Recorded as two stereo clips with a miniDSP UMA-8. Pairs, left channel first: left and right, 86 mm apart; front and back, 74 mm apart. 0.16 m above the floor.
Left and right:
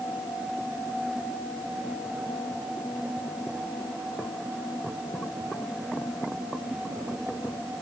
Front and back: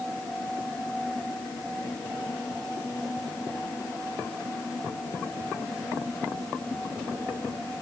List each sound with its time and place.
Only background noise.